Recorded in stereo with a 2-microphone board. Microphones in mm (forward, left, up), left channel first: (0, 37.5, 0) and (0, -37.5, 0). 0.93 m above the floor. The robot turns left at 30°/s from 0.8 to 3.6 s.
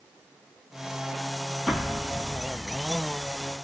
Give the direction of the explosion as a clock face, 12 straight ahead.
6 o'clock.